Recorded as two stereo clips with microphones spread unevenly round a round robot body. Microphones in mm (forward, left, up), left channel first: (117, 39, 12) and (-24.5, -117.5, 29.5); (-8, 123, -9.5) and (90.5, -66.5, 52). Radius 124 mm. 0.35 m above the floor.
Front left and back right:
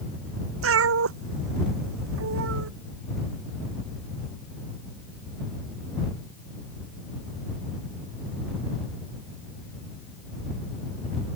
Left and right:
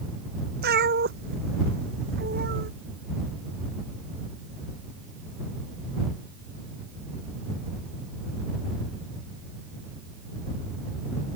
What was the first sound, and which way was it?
A cat meowing, 115° right.